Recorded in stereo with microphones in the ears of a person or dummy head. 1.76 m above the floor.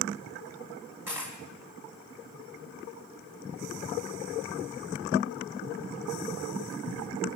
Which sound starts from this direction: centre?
A dropped coin, at 1.1 s.